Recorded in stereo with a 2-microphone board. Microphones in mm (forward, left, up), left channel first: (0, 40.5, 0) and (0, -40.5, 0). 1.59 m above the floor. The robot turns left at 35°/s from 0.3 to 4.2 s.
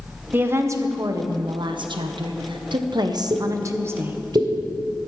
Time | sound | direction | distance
0.3 | a woman speaking | 25° right | 1.3 m
3.3 | a pop | 60° right (ahead or behind) | 2.5 m